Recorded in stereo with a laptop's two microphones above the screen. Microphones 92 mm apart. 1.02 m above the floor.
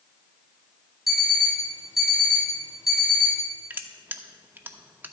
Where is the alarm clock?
Centre (ahead or behind), 3.5 m.